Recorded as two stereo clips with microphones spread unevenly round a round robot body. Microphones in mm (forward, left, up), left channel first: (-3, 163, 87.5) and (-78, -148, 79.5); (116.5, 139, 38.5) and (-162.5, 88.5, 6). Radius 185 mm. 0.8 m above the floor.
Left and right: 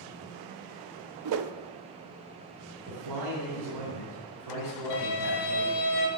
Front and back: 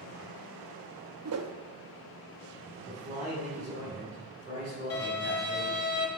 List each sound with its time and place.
1.2 s a whoosh: 135° right, 0.6 m
2.9 s a man speaking: 90° right, 3.5 m
4.9 s a violin: 40° left, 3 m